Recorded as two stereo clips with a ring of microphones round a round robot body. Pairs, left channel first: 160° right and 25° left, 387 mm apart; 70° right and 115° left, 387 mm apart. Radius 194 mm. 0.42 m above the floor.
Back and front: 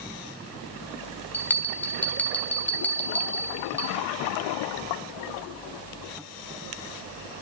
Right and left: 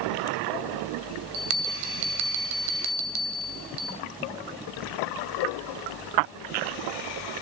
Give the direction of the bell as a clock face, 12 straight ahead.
8 o'clock.